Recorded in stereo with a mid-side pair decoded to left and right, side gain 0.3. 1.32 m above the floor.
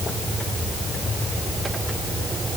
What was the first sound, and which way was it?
Only background noise.